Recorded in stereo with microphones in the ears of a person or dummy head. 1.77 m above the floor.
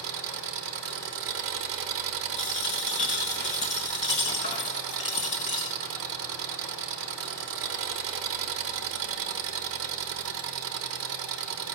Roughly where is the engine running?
Right.